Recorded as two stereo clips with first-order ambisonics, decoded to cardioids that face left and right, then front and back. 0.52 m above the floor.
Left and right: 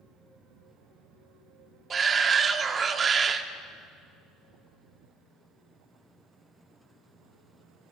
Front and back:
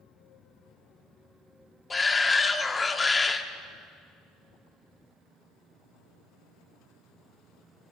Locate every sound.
1.9 s a shout: 60° right, 0.7 m